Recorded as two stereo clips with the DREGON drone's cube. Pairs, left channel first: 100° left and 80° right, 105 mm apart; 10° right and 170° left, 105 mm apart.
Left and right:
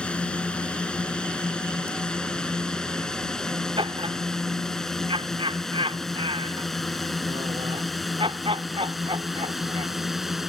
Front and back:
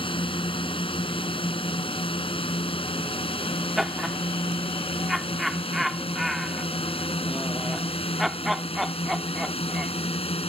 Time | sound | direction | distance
0.0 | a drone | 20° left | ?
3.8 | laughter | 105° right | ?